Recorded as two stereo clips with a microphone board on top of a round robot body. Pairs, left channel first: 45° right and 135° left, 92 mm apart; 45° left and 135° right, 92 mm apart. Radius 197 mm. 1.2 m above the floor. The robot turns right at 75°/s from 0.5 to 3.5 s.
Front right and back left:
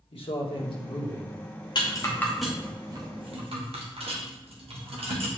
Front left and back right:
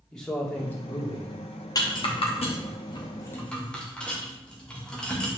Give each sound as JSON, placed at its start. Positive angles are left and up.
{"t": 0.1, "sound": "a man speaking", "azimuth_deg": -40, "distance_m": 2.0}
{"t": 1.8, "sound": "a rattle", "azimuth_deg": -5, "distance_m": 1.6}